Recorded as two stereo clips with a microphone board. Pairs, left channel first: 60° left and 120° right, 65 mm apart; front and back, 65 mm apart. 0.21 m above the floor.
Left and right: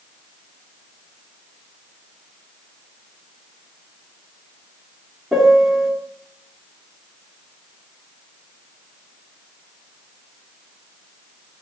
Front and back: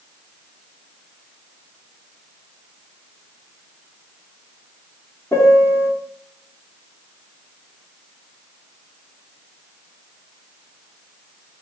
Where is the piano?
35° right, 2.0 m.